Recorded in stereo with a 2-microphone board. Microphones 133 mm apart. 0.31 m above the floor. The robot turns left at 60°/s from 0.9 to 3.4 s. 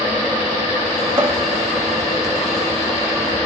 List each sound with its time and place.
1.2 s a cupboard door: 35° right (ahead or behind), 0.8 m